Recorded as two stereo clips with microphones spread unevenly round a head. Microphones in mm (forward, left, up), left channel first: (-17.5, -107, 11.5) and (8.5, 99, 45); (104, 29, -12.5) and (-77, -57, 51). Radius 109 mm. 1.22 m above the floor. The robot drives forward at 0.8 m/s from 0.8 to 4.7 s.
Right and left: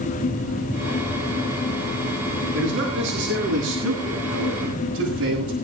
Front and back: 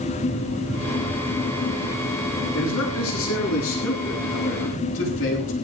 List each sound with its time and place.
2.5 s a man speaking: 50° left, 10 m; by 5.5 s 60° left, 9 m